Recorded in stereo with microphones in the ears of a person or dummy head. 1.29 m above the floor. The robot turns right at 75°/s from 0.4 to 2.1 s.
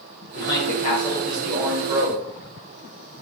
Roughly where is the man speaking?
Left.